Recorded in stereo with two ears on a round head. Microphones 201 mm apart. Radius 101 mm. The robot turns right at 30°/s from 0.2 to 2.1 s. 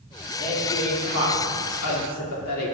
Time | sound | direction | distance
0.4 | a woman speaking | 40° left | 2 m